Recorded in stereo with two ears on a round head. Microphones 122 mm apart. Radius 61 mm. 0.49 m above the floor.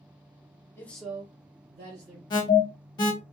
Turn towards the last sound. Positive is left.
turn(degrees=35)  # may be behind; listen again after turning